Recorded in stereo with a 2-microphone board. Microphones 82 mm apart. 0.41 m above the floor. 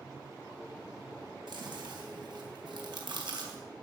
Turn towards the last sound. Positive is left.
turn(degrees=-65)  # may be behind; listen again after turning